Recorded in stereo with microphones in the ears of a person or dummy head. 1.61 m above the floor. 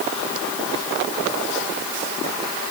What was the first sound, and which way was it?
Only background noise.